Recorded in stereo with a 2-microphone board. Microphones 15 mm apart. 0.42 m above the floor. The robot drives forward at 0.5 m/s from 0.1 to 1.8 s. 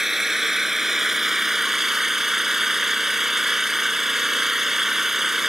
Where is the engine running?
20° right (ahead or behind).